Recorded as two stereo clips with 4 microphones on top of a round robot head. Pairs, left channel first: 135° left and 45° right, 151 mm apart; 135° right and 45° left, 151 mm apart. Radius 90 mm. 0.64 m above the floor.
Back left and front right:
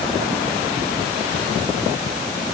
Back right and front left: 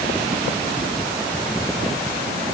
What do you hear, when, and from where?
Only background noise.